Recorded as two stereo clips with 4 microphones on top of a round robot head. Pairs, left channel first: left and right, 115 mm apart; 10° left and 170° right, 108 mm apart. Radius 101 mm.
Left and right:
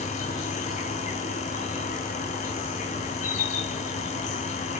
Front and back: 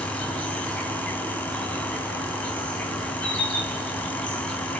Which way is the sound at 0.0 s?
90° left.